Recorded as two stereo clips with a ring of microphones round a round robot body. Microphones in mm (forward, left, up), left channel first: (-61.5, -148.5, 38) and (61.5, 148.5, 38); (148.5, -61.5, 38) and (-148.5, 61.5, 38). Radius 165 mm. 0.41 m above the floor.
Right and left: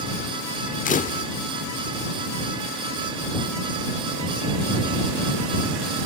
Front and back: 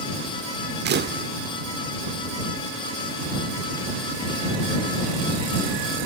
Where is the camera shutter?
165° right.